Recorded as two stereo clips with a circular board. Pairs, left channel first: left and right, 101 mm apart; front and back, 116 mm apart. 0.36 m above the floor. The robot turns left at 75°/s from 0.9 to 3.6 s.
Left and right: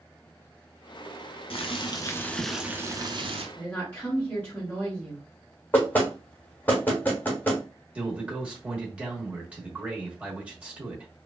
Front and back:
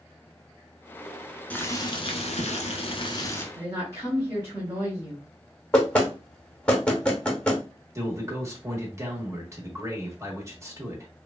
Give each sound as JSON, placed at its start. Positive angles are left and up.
{"t": 1.5, "sound": "boiling", "azimuth_deg": 75, "distance_m": 0.6}
{"t": 3.5, "sound": "a woman speaking", "azimuth_deg": 155, "distance_m": 1.4}
{"t": 5.7, "sound": "knocking", "azimuth_deg": 60, "distance_m": 0.9}
{"t": 8.0, "sound": "a man speaking", "azimuth_deg": -155, "distance_m": 0.9}